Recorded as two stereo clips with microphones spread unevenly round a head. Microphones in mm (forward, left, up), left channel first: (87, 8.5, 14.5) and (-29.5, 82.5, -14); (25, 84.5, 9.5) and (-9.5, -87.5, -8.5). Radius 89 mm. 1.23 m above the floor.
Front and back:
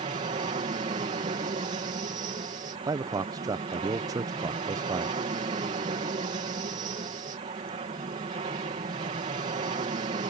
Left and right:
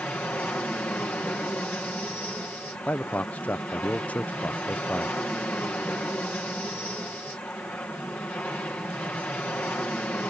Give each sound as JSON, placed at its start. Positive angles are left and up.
{"t": 0.0, "sound": "an aircraft", "azimuth_deg": 160}
{"t": 2.9, "sound": "a man speaking", "azimuth_deg": 165}